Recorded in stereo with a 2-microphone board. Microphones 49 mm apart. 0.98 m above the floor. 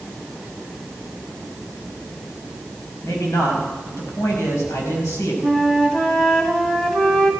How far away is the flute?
About 1.5 m.